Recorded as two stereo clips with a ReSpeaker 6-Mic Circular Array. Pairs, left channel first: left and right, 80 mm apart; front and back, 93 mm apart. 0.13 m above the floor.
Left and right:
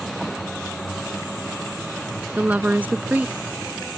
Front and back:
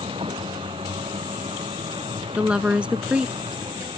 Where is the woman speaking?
120° right.